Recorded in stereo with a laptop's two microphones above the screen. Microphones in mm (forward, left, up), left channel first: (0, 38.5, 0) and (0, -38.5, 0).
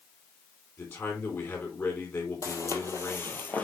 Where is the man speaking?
35° left (ahead or behind), 3.5 m.